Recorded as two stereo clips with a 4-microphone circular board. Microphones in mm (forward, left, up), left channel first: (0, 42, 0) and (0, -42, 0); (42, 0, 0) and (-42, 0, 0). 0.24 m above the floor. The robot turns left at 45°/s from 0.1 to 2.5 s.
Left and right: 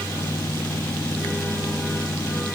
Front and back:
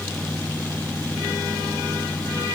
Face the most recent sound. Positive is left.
No sound to turn to.